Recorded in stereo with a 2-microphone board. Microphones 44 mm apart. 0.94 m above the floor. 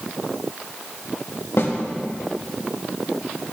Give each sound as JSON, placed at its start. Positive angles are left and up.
{"t": 1.6, "sound": "a snare drum", "side_deg": 70, "distance_m": 1.3}